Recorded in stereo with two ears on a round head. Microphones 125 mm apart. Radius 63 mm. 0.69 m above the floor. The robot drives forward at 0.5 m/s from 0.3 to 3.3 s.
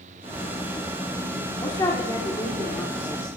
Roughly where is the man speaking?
Left.